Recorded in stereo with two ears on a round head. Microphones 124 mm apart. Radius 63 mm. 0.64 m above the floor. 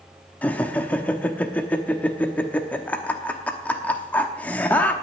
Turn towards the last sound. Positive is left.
turn(degrees=10)  # may be behind; listen again after turning